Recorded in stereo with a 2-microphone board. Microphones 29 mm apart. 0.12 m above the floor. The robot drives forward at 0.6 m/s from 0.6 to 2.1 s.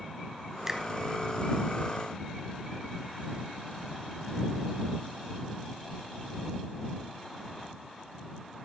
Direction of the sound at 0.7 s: 15° right (ahead or behind).